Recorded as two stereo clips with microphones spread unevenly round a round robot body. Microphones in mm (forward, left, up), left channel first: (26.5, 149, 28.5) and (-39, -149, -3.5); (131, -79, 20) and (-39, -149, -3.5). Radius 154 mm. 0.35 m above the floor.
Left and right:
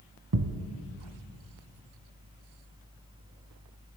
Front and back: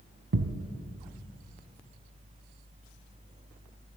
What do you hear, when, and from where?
0.3 s a thud: 145° right, 1.0 m